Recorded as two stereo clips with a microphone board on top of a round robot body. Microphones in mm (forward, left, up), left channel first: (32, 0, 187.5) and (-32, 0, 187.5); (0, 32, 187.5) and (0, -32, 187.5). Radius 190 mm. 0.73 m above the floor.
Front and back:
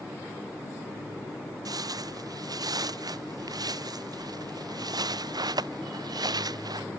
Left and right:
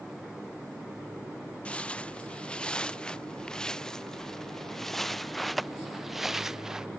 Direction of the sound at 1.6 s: 160° left.